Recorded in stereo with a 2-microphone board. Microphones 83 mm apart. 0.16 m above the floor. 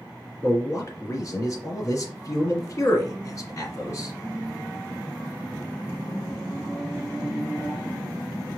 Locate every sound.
0.4 s a man speaking: 40° left (ahead or behind), 2 m